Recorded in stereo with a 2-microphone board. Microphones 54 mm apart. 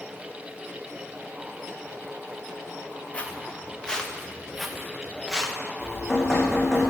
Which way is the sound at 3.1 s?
25° left (ahead or behind).